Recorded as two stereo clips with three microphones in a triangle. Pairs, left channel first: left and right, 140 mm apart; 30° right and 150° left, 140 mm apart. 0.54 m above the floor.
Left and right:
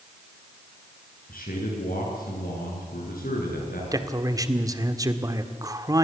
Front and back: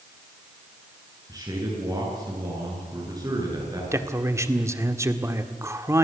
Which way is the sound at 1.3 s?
85° left.